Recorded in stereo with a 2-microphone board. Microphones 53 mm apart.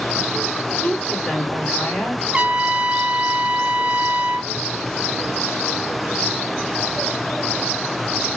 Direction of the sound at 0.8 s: 25° left (ahead or behind).